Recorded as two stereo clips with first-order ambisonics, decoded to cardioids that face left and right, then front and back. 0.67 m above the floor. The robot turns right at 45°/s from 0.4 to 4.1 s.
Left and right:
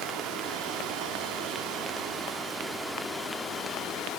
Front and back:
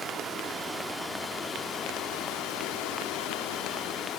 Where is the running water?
115° right, 0.8 m; by 4.2 s 50° left, 0.8 m.